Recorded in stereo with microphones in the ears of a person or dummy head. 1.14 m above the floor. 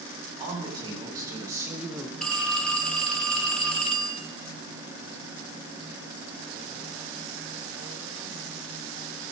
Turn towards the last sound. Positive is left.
turn(degrees=10)  # may be behind; listen again after turning